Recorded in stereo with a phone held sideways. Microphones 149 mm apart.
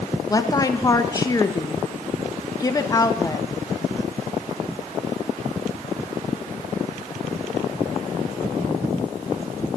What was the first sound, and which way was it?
A woman speaking, 25° left (ahead or behind).